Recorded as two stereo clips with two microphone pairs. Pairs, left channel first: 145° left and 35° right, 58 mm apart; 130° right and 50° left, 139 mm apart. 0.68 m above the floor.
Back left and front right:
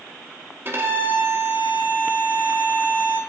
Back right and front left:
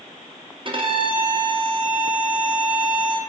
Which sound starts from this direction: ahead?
A violin, at 0.7 s.